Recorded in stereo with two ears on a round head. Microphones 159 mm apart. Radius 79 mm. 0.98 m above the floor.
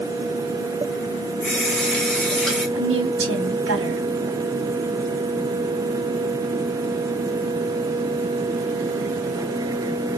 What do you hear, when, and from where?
1.4 s a running tap: 5° left (ahead or behind), 2.5 m
2.8 s a woman speaking: 80° right, 2 m